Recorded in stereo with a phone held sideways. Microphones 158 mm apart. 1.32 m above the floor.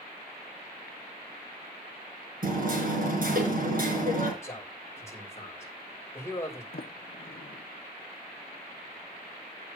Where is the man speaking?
15° left (ahead or behind), 6 m.